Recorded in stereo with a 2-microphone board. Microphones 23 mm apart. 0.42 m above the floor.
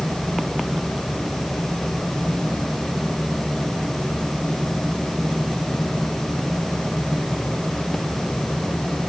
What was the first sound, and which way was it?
Only background noise.